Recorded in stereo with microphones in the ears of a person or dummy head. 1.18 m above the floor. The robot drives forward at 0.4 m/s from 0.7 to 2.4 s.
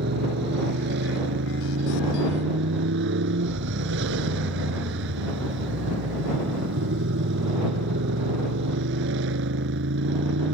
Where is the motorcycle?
70° right (ahead or behind); by 10.6 s 75° right (ahead or behind).